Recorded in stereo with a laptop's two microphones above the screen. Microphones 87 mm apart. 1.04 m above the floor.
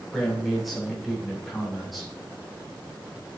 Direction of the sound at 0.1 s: Centre (ahead or behind).